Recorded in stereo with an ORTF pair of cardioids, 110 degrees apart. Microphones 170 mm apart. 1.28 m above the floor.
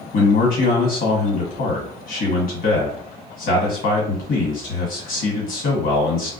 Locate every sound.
0.1 s a man speaking: 60° left, 1.5 m